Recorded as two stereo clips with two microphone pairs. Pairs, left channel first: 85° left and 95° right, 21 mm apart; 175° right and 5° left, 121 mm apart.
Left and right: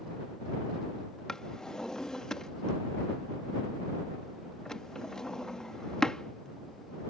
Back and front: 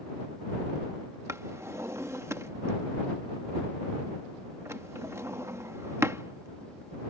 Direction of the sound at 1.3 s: 55° left.